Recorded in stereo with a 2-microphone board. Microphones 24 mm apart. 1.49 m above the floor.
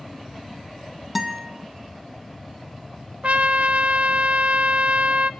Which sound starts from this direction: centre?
A guitar, at 1.1 s.